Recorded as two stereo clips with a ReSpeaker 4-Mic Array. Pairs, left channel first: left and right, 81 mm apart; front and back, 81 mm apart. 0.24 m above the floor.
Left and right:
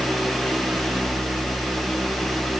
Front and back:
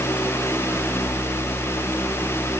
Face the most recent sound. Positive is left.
No sound to turn to.